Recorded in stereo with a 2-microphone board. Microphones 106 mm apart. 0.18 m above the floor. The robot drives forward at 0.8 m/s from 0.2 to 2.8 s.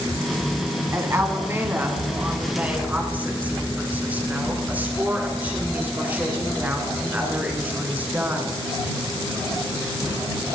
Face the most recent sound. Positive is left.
turn(degrees=-15)  # may be behind; listen again after turning